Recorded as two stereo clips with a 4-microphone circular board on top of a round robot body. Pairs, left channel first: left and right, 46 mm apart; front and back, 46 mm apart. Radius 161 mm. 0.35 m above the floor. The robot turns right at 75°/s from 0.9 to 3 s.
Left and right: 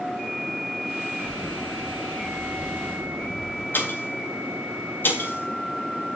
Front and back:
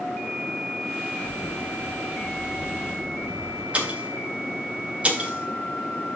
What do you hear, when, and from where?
1.2 s a camera shutter: 35° left, 4.5 m; by 3.6 s 170° left, 4.5 m
3.7 s a pop: 120° left, 3.5 m